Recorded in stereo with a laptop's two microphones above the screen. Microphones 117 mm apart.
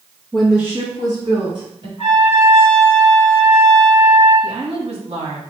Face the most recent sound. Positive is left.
turn(degrees=-55)  # may be behind; listen again after turning